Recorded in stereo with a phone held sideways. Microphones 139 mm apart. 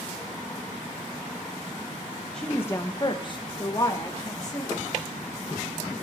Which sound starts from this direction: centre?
A woman speaking, at 2.3 s.